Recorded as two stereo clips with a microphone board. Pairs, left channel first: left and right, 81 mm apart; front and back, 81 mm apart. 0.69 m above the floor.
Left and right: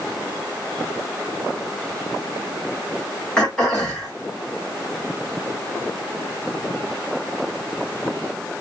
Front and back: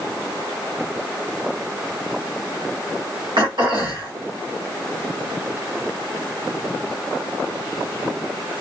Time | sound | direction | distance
3.4 | throat clearing | 170° left | 1.6 m